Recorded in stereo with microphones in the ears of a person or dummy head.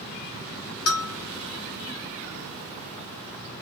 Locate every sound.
0.9 s a bell: 80° left, 1.1 m